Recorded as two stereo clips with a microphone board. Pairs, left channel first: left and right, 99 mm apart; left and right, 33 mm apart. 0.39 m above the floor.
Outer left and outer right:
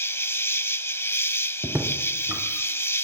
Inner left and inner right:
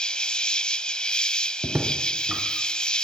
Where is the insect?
25° left (ahead or behind), 0.7 m.